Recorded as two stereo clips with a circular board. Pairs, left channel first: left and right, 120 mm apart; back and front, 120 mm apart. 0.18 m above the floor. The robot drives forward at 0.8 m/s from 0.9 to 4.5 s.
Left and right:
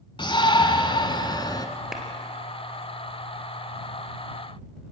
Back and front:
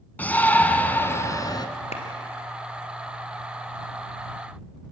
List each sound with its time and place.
0.2 s a shout: 110° left, 1.3 m; by 1.7 s 140° left, 1.6 m
1.9 s a clap: 175° right, 3 m